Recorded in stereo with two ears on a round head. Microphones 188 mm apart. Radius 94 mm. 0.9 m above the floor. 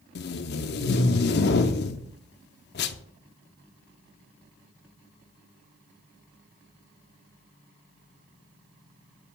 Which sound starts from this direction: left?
Tape being pulled, at 0.1 s.